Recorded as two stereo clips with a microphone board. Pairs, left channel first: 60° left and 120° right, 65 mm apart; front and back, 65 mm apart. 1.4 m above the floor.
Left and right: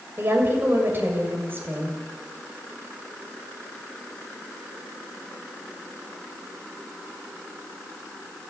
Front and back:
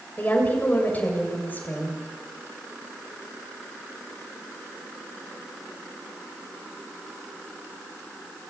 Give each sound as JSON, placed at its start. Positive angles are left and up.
{"t": 0.2, "sound": "a woman speaking", "azimuth_deg": -60, "distance_m": 7.0}